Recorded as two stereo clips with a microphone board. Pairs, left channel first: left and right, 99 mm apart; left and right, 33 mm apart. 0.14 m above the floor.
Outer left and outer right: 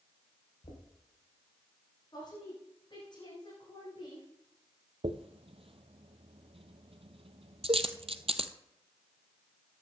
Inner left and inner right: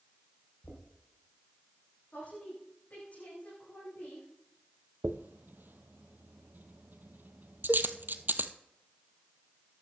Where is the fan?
No fan in this recording.